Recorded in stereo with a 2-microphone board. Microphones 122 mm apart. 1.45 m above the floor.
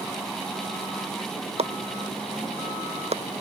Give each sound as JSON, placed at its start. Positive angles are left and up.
{"t": 1.6, "sound": "chopping", "side_deg": -60}